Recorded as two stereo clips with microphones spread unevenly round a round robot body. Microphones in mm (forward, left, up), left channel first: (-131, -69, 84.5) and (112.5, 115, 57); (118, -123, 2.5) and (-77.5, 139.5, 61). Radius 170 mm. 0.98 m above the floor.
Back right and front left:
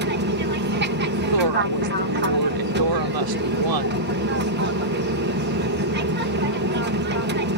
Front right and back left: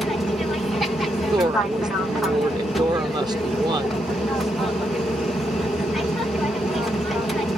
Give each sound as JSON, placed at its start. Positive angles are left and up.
{"t": 0.0, "sound": "an aircraft", "azimuth_deg": 25}
{"t": 1.3, "sound": "a woman speaking", "azimuth_deg": 45}